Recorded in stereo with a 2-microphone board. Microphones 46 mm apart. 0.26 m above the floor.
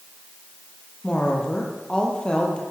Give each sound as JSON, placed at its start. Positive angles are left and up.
{"t": 1.0, "sound": "a woman speaking", "side_deg": 20, "distance_m": 9.0}